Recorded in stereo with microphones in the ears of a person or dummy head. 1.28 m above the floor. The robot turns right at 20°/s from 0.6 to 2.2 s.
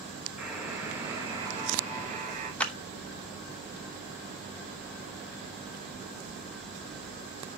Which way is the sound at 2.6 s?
10° left (ahead or behind).